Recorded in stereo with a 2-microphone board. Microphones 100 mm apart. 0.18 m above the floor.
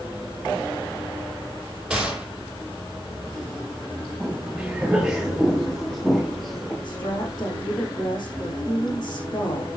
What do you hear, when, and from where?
1.9 s a gunshot: 10° right (ahead or behind), 6.5 m
4.2 s footsteps: 10° right (ahead or behind), 6.5 m; by 6.7 s centre (ahead or behind), 5.5 m
6.8 s a woman speaking: 35° left (ahead or behind), 7 m